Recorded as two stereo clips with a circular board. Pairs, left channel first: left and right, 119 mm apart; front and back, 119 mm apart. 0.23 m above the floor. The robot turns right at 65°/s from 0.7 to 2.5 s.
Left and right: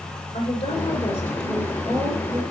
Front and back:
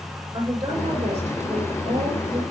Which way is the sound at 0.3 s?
125° left.